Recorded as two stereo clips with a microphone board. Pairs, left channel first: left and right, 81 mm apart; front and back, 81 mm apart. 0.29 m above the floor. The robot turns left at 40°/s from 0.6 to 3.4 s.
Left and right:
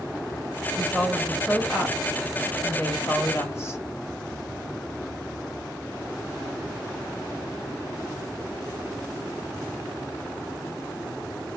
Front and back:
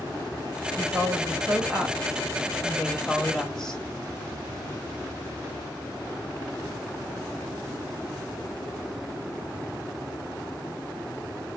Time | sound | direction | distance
0.8 | a woman speaking | 170° right | 1.4 m